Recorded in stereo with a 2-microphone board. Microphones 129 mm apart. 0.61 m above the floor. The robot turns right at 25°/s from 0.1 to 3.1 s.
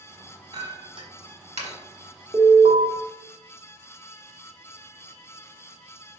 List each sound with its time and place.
0.5 s a clink: 30° right (ahead or behind), 1.4 m; by 1.8 s 55° right (ahead or behind), 1.4 m
2.3 s an alarm: 35° right (ahead or behind), 1.5 m; by 2.9 s 45° right (ahead or behind), 1.5 m